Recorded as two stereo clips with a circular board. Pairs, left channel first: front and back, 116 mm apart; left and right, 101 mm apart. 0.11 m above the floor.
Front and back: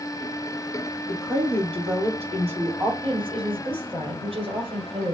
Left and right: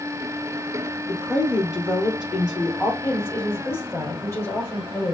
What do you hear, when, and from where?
1.1 s a woman speaking: 175° right, 3 m
3.0 s a woman speaking: 150° left, 2.5 m